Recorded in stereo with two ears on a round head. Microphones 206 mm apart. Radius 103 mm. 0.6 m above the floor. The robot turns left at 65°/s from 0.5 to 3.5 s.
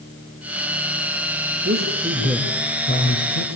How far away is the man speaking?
About 3 m.